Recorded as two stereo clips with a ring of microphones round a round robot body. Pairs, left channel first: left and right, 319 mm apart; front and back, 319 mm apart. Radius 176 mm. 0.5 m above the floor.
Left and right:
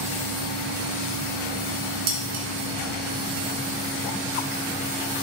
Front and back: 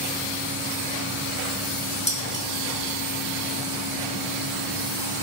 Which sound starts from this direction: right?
Dishes clattering, at 2.1 s.